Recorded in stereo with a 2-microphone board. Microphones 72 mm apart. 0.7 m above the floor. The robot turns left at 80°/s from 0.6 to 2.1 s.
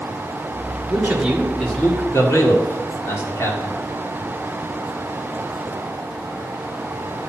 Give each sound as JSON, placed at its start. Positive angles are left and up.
{"t": 0.9, "sound": "a man speaking", "side_deg": -40, "distance_m": 2.0}